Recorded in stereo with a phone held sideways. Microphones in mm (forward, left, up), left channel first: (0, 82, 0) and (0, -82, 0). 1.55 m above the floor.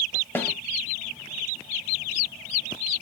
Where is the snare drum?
15° left (ahead or behind), 1.6 m.